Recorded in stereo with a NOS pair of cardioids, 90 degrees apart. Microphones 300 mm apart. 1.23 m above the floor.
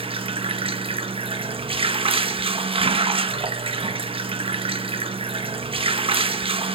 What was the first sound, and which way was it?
Running water, 20° right.